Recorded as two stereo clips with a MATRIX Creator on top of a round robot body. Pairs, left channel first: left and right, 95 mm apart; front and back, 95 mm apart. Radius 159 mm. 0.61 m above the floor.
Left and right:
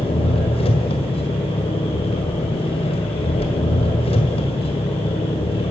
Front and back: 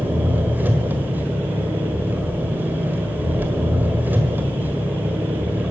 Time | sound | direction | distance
0.0 | an engine running | 110° left | 1.6 m